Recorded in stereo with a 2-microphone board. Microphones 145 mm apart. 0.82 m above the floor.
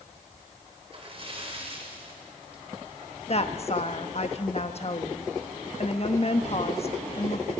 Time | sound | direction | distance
0.9 | a splash | 40° right (ahead or behind) | 3 m
3.3 | a woman speaking | 45° left (ahead or behind) | 1.1 m